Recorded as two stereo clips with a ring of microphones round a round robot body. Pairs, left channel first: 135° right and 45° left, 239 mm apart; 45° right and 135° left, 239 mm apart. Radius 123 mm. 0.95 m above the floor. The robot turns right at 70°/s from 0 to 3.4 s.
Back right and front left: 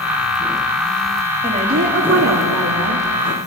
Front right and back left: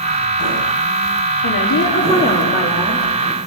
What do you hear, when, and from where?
1.4 s a woman speaking: 30° right, 2.5 m; by 3.1 s 85° left, 2.5 m